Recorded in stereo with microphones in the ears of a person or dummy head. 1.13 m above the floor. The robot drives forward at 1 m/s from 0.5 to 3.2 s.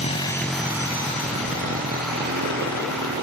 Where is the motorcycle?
40° left (ahead or behind); by 3.2 s 60° right (ahead or behind).